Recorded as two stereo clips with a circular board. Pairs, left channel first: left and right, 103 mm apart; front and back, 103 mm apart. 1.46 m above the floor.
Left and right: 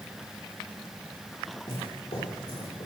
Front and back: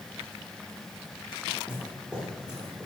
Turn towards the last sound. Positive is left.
turn(degrees=100)